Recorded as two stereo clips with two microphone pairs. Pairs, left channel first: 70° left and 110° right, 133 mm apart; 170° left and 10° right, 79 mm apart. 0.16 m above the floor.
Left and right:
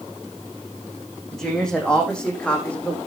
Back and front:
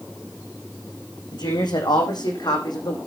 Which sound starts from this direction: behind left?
A woman speaking, at 1.3 s.